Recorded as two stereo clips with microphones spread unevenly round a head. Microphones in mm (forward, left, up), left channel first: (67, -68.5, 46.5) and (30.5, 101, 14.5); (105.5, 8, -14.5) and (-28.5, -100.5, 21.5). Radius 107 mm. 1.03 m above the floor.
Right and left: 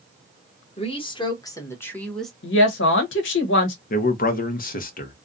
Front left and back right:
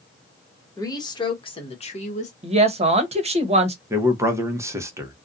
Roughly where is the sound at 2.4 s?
Right.